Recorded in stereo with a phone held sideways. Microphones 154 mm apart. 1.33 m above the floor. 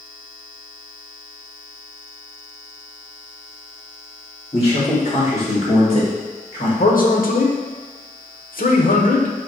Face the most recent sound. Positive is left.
turn(degrees=65)  # may be behind; listen again after turning